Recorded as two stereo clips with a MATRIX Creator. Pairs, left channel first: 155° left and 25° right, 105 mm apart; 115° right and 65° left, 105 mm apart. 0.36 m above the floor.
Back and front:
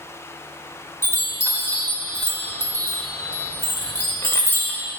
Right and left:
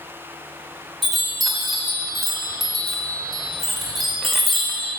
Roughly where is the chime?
Behind.